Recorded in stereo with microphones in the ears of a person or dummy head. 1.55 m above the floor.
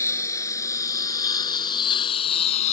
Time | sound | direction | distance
0.0 | a lawn mower | 10° left (ahead or behind) | ?